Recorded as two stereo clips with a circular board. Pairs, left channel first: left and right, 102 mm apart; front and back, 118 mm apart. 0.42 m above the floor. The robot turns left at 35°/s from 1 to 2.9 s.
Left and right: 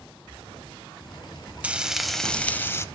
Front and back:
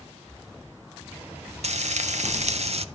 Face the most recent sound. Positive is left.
turn(degrees=150)